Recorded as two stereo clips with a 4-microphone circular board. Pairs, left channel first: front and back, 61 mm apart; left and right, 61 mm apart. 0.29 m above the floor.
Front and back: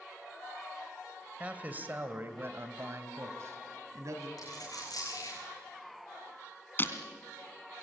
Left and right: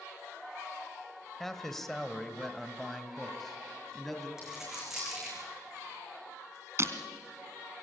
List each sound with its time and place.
1.4 s a man speaking: 165° left, 1.4 m; by 4.3 s 175° left, 2.5 m
4.4 s a dropped coin: 10° right, 6 m
6.8 s breaking glass: 55° right, 1.8 m